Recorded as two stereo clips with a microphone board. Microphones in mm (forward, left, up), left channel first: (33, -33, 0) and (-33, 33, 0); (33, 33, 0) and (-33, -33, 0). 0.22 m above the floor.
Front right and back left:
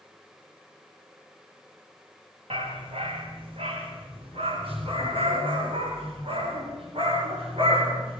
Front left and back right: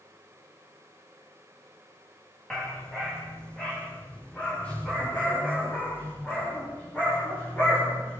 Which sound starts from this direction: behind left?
A dog barking, at 2.5 s.